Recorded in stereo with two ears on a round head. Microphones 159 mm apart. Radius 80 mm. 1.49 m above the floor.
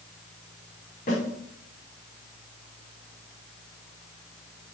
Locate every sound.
1.1 s a snare drum: 45° left (ahead or behind), 4.5 m